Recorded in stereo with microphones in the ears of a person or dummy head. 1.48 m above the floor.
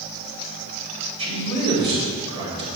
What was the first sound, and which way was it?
A man speaking, 25° right (ahead or behind).